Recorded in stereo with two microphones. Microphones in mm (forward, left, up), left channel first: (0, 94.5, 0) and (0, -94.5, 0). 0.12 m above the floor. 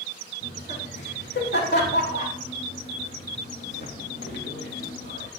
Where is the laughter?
65° left (ahead or behind), 6 m; by 5.3 s 75° left (ahead or behind), 4 m.